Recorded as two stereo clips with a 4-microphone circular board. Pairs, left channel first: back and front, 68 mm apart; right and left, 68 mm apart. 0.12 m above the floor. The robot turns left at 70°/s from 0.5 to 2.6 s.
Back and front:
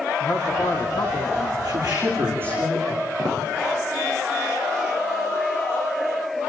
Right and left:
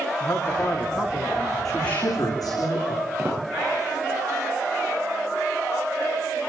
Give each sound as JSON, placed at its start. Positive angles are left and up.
{"t": 0.2, "sound": "a man speaking", "azimuth_deg": -155, "distance_m": 7.0}
{"t": 1.6, "sound": "a woman speaking", "azimuth_deg": -5, "distance_m": 10.0}
{"t": 3.2, "sound": "footsteps", "azimuth_deg": 25, "distance_m": 9.0}